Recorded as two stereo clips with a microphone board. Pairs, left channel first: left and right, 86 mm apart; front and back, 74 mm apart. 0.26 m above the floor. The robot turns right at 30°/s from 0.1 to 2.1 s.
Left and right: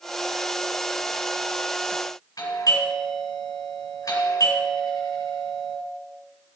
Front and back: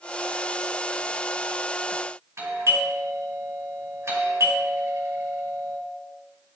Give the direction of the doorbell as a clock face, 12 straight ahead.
8 o'clock.